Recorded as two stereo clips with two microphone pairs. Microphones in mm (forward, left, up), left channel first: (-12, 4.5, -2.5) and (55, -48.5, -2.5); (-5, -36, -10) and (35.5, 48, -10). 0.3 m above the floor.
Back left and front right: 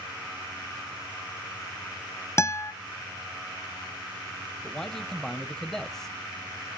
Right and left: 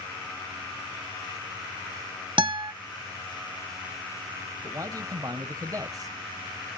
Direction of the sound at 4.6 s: 60° left.